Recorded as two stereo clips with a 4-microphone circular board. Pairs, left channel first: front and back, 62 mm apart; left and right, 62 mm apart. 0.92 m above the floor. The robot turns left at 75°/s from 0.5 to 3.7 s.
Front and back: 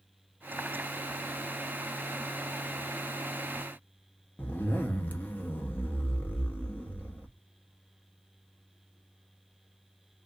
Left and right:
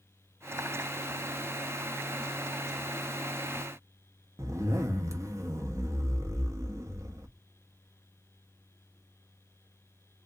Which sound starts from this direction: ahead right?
A zipper, at 4.4 s.